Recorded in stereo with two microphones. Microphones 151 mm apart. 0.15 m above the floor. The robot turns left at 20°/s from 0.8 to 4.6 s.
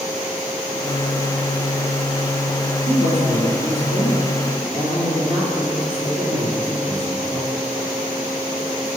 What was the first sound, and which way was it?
A woman speaking, 110° right.